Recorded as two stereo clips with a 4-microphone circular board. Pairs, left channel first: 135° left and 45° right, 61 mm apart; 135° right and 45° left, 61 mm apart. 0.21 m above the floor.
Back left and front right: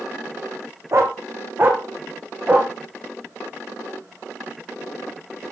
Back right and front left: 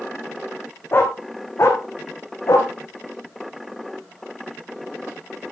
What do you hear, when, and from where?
0.9 s a dog barking: 85° right, 3 m; by 2.7 s 110° right, 3.5 m